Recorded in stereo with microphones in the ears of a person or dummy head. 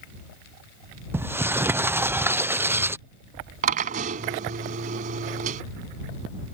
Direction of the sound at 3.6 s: 40° right (ahead or behind).